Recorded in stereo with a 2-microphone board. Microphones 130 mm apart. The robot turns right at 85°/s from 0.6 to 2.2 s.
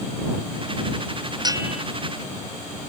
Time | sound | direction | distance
1.4 | a bell | 35° right | ?